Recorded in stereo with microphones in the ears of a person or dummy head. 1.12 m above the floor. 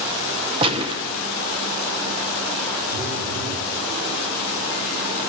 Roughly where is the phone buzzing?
Right.